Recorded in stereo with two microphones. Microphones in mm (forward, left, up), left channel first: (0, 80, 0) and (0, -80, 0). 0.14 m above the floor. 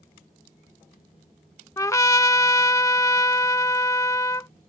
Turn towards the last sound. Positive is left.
turn(degrees=20)  # may be behind; listen again after turning